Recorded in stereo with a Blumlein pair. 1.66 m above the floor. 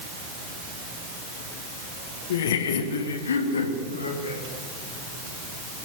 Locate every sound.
2.3 s laughter: 55° left, 1.9 m; by 4.4 s 75° left, 4 m